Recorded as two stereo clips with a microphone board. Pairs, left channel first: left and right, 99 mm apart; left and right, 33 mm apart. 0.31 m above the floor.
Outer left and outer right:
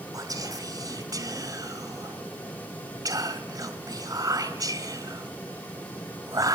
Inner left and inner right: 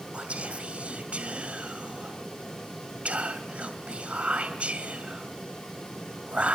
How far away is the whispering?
About 2.0 m.